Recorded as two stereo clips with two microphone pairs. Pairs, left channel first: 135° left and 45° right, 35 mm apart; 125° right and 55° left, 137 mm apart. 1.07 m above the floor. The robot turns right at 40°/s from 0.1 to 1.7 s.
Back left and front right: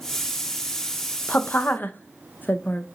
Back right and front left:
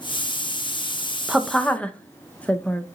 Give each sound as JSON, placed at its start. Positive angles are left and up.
{"t": 1.3, "sound": "a woman speaking", "azimuth_deg": 140, "distance_m": 0.5}